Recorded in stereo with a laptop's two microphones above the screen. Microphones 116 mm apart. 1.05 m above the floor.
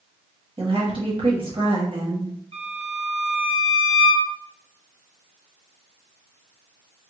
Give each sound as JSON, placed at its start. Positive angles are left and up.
{"t": 0.6, "sound": "a woman speaking", "side_deg": -50, "distance_m": 1.5}
{"t": 2.5, "sound": "a violin", "side_deg": -55, "distance_m": 0.6}